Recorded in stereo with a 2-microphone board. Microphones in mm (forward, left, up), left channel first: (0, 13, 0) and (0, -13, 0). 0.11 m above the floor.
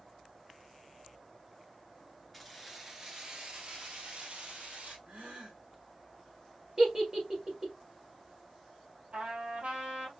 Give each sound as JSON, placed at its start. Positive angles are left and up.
{"t": 2.3, "sound": "keys jangling", "side_deg": 0, "distance_m": 1.1}
{"t": 5.1, "sound": "a gasp", "side_deg": -60, "distance_m": 1.7}
{"t": 6.8, "sound": "a giggle", "side_deg": -20, "distance_m": 2.5}
{"t": 9.1, "sound": "a trumpet", "side_deg": -60, "distance_m": 3.0}